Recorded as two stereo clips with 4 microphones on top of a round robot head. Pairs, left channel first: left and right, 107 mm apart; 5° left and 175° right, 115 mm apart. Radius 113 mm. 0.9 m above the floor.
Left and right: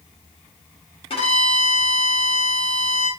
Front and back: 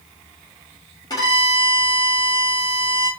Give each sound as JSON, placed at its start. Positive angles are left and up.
{"t": 1.1, "sound": "a violin", "azimuth_deg": 60, "distance_m": 2.5}